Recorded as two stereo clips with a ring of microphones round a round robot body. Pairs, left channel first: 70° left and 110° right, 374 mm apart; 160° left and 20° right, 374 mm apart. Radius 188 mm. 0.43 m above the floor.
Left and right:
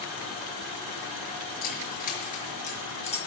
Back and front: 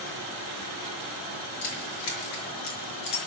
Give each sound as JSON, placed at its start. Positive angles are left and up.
{"t": 1.6, "sound": "keys jangling", "azimuth_deg": 135, "distance_m": 6.0}